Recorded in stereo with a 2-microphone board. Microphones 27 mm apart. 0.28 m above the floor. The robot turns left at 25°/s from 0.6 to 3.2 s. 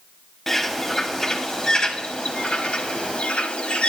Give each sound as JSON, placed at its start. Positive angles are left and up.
{"t": 0.5, "sound": "a bird", "azimuth_deg": 165, "distance_m": 1.1}